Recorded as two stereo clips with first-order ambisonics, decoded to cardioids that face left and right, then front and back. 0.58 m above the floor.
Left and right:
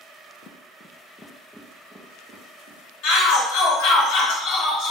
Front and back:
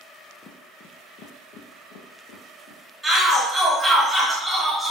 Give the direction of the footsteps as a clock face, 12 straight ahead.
10 o'clock.